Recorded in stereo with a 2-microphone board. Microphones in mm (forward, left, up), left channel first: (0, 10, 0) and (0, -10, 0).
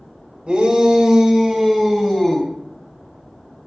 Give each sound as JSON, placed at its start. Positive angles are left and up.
{"t": 0.5, "sound": "a shout", "side_deg": -45, "distance_m": 2.5}